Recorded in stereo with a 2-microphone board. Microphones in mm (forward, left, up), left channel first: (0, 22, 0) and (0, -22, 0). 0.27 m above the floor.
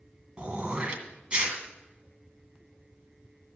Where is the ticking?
No ticking in this recording.